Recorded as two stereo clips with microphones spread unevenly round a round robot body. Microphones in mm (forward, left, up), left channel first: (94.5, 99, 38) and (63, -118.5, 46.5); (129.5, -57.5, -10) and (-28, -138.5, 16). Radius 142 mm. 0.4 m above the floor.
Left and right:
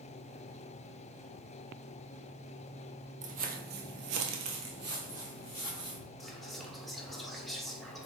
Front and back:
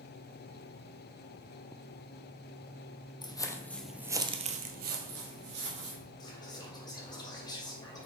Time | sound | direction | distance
3.2 | footsteps | 45° right | 0.8 m
6.2 | whispering | 5° right | 1.4 m